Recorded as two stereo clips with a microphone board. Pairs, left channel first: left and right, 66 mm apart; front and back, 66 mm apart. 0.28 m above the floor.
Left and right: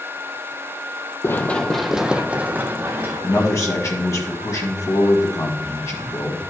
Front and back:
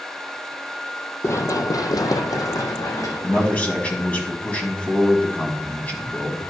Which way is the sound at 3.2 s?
60° left.